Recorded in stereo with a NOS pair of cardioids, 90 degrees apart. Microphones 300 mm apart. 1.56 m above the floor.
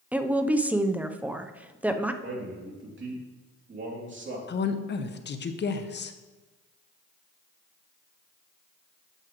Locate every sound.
0.1 s a woman speaking: 5° right, 0.7 m
2.2 s a man speaking: 40° right, 3 m
4.5 s a woman speaking: 35° left, 0.9 m